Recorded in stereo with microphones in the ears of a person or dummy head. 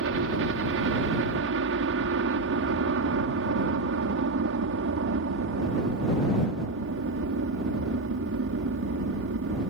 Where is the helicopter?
65° right (ahead or behind).